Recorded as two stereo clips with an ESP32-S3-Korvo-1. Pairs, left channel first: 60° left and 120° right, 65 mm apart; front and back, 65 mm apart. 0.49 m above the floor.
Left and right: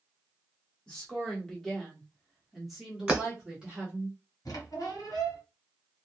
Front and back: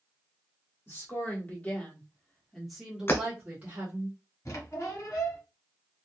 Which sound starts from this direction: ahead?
A woman speaking, at 0.9 s.